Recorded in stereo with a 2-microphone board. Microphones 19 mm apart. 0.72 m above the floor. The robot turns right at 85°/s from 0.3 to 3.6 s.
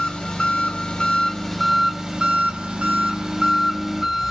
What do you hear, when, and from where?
0.0 s an engine running: 60° left, 0.8 m; by 4.3 s 20° right, 0.8 m